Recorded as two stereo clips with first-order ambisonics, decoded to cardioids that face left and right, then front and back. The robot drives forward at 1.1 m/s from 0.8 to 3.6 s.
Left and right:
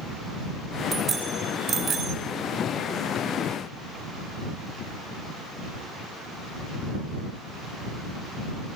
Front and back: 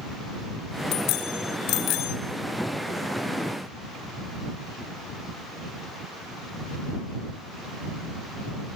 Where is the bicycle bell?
25° right, 5 m; by 2.2 s 35° right, 4 m.